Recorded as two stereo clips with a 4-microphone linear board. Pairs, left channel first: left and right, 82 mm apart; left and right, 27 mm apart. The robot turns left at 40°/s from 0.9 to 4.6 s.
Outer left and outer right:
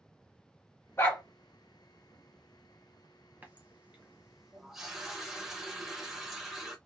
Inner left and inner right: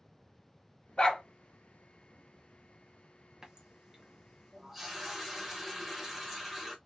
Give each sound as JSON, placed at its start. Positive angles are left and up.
{"t": 1.0, "sound": "a dog barking", "side_deg": 30, "distance_m": 1.2}
{"t": 3.4, "sound": "a running tap", "side_deg": -20, "distance_m": 0.8}